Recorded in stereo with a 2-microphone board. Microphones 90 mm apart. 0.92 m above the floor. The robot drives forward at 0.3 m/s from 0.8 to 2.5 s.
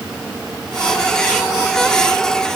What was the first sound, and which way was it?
Only background noise.